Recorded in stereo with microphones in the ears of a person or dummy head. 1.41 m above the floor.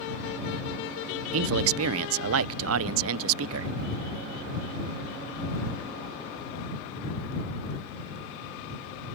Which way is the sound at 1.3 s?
80° right.